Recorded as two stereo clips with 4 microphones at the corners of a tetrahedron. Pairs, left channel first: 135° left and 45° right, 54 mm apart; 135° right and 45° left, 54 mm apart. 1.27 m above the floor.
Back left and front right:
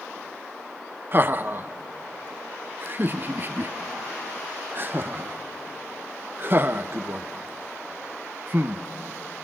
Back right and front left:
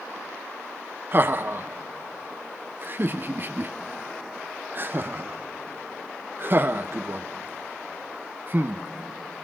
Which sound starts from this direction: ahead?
Laughter, at 1.1 s.